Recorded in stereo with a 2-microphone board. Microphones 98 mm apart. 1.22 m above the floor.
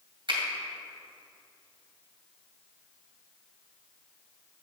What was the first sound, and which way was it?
A finger snap, 55° right (ahead or behind).